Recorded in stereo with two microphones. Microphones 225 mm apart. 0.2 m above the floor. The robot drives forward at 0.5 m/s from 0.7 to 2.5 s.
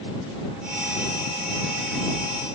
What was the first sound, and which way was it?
Only background noise.